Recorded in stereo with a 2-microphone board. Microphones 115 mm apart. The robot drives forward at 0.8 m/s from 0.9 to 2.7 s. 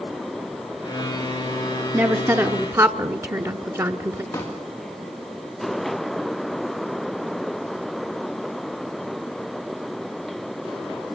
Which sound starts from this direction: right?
A woman speaking, at 1.9 s.